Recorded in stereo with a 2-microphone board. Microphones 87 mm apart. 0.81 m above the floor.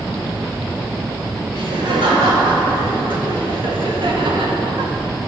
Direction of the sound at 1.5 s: 80° right.